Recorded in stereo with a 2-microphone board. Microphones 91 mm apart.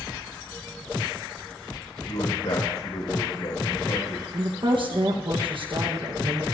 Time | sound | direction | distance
2.1 | a man speaking | 80° left | 5.5 m
4.3 | a woman speaking | 60° right (ahead or behind) | 1.3 m